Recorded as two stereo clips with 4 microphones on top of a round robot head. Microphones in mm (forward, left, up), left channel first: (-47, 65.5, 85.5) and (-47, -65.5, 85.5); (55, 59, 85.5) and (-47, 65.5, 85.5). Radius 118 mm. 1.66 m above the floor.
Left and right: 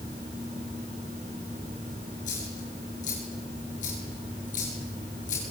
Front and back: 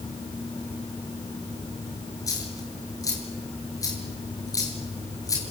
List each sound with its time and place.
2.3 s a dropped coin: 50° left, 7.5 m